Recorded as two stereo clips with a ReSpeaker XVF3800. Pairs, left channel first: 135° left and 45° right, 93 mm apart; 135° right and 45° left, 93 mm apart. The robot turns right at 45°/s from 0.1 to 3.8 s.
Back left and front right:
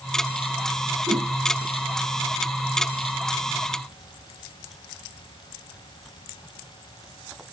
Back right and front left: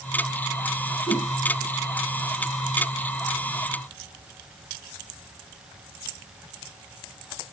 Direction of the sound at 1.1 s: 100° right.